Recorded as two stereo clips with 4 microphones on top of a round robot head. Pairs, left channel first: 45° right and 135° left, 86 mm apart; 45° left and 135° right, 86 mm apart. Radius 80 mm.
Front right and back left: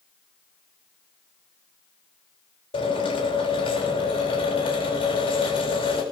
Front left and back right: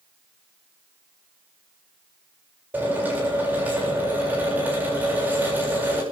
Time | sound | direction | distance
2.7 | a drill | 65° right | 7.5 m